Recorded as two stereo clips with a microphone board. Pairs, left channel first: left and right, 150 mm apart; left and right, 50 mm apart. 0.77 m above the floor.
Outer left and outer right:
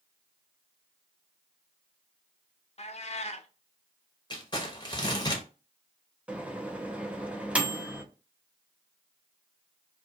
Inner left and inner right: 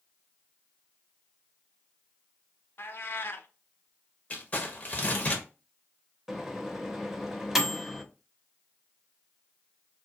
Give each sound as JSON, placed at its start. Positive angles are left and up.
{"t": 2.8, "sound": "a cat meowing", "side_deg": 45, "distance_m": 0.5}
{"t": 4.3, "sound": "crumpling", "side_deg": 30, "distance_m": 0.9}
{"t": 6.3, "sound": "a microwave", "side_deg": -10, "distance_m": 0.6}